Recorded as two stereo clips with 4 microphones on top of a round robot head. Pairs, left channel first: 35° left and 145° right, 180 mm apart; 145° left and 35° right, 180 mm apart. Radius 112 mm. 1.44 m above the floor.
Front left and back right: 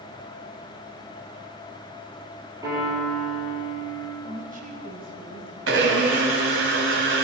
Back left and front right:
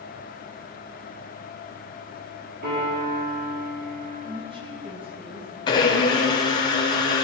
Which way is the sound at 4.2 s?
100° right.